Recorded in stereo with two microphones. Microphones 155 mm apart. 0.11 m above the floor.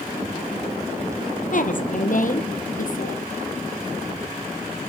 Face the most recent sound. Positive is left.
turn(degrees=60)  # may be behind; listen again after turning